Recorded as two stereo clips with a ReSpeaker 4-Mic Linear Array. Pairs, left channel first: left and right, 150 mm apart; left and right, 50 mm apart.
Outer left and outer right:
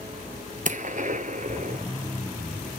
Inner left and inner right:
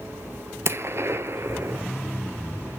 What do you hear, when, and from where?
0.7 s a gunshot: 60° right (ahead or behind), 0.6 m